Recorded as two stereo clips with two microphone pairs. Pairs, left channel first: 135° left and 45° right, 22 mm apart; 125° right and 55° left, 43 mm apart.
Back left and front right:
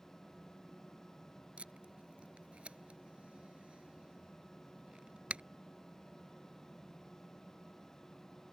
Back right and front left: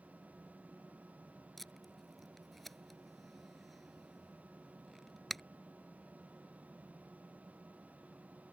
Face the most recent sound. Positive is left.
turn(degrees=-40)